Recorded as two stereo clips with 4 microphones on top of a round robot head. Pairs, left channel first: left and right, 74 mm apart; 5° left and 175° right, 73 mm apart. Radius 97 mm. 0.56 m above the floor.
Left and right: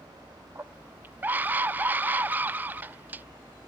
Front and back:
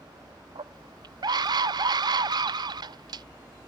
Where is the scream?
160° right.